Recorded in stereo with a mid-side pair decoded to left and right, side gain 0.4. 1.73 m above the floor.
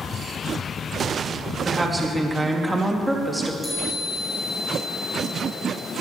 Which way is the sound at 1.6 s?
25° right.